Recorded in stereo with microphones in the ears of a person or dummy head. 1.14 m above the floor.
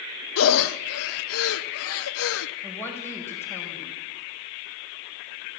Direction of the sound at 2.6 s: 15° left (ahead or behind).